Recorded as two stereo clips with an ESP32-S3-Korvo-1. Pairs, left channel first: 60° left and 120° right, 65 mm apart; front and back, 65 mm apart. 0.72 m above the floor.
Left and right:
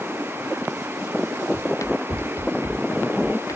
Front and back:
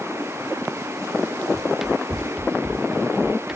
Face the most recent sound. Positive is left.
turn(degrees=95)